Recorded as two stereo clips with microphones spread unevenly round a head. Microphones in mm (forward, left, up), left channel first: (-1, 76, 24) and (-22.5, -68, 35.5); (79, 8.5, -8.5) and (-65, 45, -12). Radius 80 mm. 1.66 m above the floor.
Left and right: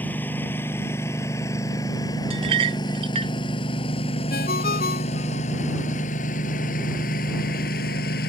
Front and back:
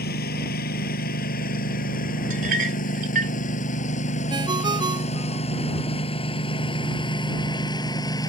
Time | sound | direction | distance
0.0 | a lawn mower | straight ahead | ?
2.3 | a clink | 150° right | ?
4.3 | a ringtone | 105° left | ?